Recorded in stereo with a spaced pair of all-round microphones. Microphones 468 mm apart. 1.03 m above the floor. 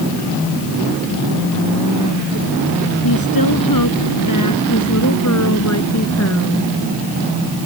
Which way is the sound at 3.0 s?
50° left (ahead or behind).